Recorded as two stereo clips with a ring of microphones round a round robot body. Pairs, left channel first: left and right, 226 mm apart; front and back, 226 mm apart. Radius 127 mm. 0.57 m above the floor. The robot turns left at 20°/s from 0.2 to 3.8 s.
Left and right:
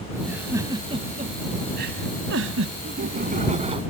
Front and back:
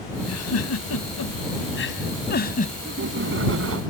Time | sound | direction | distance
0.2 | a giggle | 5° right | ?
2.8 | laughter | 135° right | ?